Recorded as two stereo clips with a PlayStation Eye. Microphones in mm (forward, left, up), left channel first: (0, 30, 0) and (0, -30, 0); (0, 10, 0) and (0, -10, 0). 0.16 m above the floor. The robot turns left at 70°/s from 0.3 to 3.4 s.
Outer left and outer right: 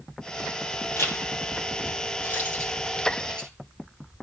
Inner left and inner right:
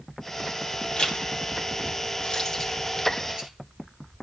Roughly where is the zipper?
Left.